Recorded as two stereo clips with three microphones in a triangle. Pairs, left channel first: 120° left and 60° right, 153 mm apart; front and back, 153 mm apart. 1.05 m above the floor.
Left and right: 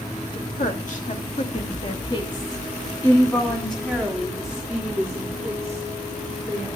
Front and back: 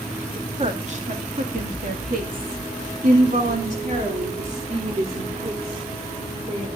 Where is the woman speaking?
135° left, 2.5 m; by 6.7 s 130° right, 5 m.